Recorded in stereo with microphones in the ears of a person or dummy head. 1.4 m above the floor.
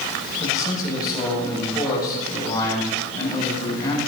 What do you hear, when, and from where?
0.4 s a man speaking: 25° left (ahead or behind), 7 m